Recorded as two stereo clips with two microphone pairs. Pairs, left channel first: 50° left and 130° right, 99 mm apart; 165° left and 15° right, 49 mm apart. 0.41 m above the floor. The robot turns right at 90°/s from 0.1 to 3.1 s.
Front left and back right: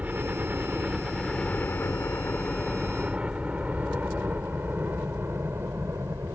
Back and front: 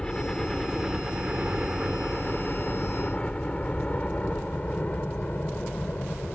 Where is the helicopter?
165° right; by 6.4 s 170° right.